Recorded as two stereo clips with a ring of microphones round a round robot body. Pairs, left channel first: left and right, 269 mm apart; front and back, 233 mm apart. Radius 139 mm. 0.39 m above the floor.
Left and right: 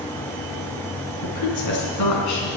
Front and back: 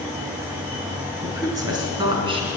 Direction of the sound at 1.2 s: 100° left.